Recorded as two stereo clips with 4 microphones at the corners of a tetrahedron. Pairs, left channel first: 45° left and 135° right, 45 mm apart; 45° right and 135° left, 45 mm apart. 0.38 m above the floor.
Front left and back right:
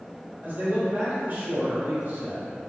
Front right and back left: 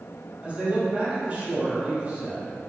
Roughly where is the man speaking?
Behind.